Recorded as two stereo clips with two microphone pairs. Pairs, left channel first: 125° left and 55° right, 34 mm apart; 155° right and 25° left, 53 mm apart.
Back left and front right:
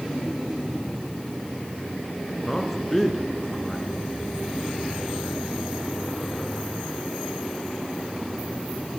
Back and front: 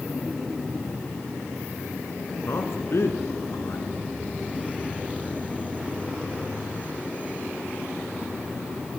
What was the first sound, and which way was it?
A man speaking, 155° right.